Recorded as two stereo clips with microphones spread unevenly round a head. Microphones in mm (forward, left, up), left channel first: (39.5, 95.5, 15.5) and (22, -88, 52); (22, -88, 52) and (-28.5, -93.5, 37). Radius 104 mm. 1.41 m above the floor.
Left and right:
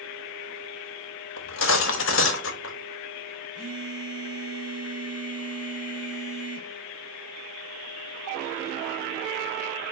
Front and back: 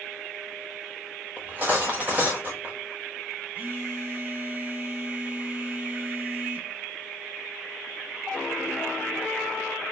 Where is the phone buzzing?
115° right, 3 m.